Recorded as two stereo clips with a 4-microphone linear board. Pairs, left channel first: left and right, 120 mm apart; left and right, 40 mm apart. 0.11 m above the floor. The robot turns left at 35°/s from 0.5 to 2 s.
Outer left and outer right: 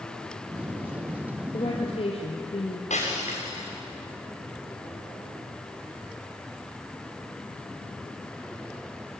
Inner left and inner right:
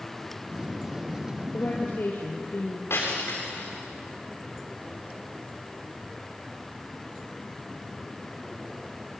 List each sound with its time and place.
1.5 s a woman speaking: 45° left (ahead or behind), 2.5 m; by 2.8 s 55° left (ahead or behind), 2.5 m
2.9 s breaking glass: 75° left (ahead or behind), 8 m